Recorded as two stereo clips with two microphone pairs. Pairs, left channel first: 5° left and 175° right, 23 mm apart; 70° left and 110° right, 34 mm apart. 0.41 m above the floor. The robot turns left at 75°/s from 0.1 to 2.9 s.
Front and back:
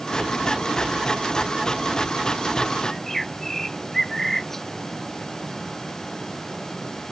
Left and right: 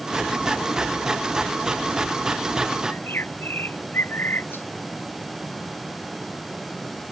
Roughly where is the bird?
Left.